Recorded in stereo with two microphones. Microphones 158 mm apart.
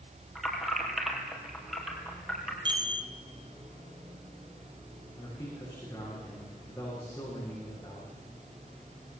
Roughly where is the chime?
Right.